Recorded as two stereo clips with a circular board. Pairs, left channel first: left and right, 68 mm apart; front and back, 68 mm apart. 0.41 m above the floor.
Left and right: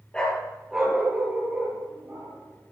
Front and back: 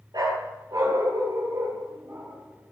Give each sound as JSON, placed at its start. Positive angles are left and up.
{"t": 0.1, "sound": "a dog barking", "azimuth_deg": 165, "distance_m": 2.0}